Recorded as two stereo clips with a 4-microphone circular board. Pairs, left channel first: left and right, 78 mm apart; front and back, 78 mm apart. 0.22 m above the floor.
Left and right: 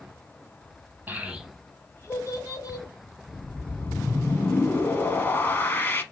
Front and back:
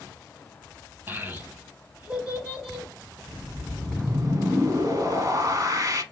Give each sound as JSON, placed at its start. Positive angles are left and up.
{"t": 1.1, "sound": "a child speaking", "azimuth_deg": -135, "distance_m": 0.7}
{"t": 3.3, "sound": "a whoosh", "azimuth_deg": 150, "distance_m": 0.6}